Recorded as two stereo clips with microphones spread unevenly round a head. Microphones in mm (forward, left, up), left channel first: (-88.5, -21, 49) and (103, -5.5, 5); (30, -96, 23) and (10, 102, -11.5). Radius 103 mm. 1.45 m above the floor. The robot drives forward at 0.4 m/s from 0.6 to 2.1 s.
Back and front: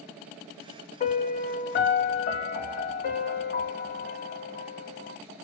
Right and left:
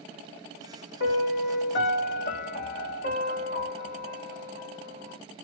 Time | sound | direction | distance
1.0 | a piano | 120° right | 1.2 m